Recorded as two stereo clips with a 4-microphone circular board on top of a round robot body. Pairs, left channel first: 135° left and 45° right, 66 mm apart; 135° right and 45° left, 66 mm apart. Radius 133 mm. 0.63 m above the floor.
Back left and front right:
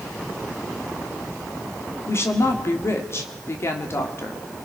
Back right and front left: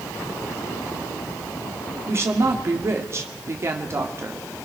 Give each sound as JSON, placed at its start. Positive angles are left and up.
{"t": 2.1, "sound": "a woman speaking", "azimuth_deg": 90, "distance_m": 2.5}